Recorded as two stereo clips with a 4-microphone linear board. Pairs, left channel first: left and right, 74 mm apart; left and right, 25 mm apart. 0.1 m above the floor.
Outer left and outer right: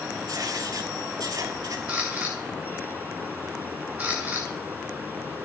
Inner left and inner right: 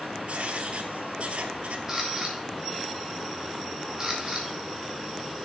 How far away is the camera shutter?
About 2.5 m.